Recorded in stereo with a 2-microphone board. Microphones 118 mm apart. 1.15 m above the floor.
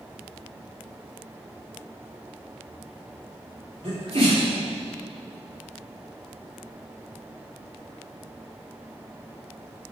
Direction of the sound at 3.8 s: 55° right (ahead or behind).